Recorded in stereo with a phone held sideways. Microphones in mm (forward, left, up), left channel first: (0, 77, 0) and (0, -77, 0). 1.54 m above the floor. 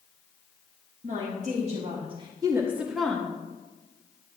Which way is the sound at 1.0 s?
60° right (ahead or behind).